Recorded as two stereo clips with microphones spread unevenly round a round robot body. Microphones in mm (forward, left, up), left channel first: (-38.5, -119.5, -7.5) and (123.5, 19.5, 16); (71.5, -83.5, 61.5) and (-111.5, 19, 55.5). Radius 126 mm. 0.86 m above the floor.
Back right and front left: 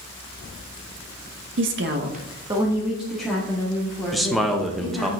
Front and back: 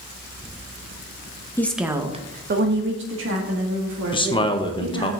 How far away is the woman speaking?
About 0.8 m.